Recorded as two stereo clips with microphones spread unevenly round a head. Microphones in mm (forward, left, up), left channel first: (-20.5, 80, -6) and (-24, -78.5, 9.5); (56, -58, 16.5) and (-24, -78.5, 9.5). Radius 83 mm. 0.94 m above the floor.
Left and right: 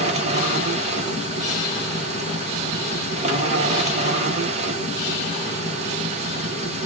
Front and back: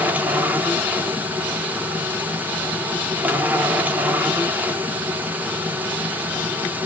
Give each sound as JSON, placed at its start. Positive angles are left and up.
{"t": 0.0, "sound": "a machine running", "azimuth_deg": -115, "distance_m": 1.0}